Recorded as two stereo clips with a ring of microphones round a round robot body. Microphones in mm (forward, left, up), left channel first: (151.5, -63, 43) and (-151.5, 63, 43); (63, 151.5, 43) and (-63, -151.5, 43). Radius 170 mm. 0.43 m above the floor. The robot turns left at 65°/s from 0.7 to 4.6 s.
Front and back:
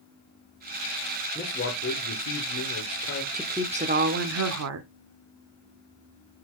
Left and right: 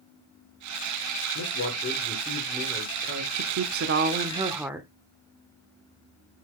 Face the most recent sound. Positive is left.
turn(degrees=165)